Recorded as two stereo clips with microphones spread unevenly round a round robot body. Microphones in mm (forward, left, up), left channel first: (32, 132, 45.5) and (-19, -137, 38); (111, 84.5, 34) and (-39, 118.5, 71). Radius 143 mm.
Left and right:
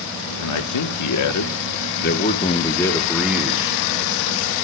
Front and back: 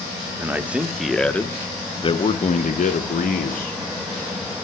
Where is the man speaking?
85° left, 1.6 m; by 3.8 s 25° right, 1.7 m.